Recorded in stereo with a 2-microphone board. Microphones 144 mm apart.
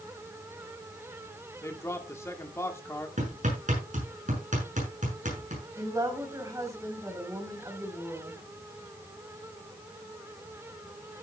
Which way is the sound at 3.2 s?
65° right (ahead or behind).